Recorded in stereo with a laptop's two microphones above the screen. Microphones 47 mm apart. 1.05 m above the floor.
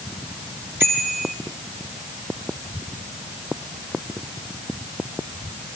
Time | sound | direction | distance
0.8 | a bicycle bell | 60° right (ahead or behind) | 10 m